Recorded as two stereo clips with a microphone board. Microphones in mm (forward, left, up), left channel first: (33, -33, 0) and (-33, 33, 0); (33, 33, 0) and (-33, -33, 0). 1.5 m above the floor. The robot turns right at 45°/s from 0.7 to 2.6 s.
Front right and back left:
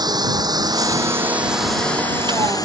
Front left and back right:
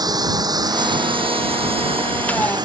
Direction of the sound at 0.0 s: Straight behind.